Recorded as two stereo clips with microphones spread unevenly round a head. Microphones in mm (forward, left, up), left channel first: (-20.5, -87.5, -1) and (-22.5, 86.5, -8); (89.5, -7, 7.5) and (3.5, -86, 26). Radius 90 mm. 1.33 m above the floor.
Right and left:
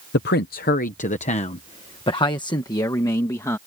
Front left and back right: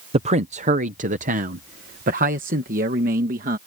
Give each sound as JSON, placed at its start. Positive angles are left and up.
{"t": 0.1, "sound": "a man speaking", "azimuth_deg": -105}